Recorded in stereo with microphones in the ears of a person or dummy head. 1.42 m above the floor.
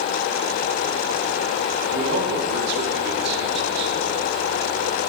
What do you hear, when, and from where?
1.9 s a man speaking: 60° right (ahead or behind), 4 m